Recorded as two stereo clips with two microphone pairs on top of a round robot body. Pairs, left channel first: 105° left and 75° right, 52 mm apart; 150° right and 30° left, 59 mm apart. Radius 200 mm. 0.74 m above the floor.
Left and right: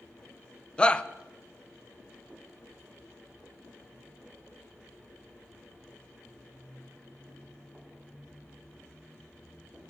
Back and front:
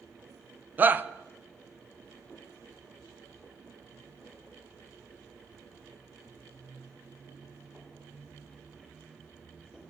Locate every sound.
0.8 s a shout: 55° left, 0.8 m